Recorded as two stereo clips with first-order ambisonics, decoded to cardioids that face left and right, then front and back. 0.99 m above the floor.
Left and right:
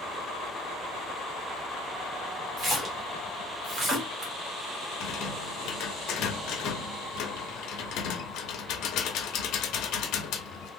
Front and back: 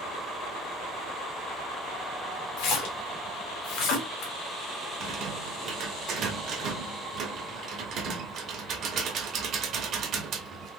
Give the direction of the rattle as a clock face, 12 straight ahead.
8 o'clock.